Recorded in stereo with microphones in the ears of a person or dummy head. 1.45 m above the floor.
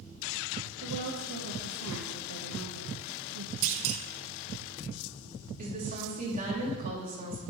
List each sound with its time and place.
0.8 s a woman speaking: 80° right, 1.5 m
3.6 s a clunk: 70° right (ahead or behind), 1.1 m
5.6 s a woman speaking: 40° right (ahead or behind), 3 m